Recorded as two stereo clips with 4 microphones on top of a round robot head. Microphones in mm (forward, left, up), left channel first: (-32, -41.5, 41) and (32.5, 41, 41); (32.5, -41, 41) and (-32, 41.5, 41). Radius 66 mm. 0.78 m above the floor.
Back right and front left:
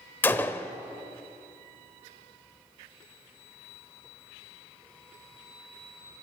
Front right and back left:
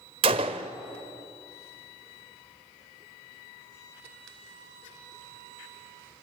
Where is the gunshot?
160° left, 0.6 m.